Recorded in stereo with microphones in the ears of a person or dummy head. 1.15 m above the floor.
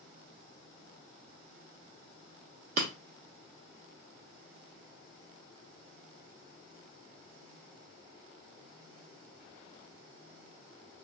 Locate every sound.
2.8 s breaking glass: 50° right (ahead or behind), 0.8 m